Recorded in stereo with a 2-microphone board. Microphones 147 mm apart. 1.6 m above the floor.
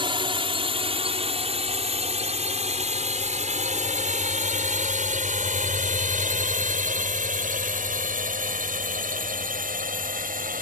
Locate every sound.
0.0 s a drone: 35° right (ahead or behind); by 10.6 s 70° right (ahead or behind)